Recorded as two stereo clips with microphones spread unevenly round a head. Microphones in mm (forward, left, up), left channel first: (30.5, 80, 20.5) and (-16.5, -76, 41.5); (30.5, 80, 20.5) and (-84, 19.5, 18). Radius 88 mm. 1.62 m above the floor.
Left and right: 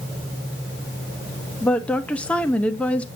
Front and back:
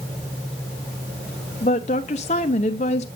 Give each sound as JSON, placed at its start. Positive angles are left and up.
{"t": 1.6, "sound": "a woman speaking", "azimuth_deg": -15, "distance_m": 0.7}